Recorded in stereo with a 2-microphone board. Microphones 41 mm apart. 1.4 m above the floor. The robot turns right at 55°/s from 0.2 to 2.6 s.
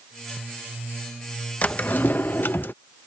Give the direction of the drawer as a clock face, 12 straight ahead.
11 o'clock.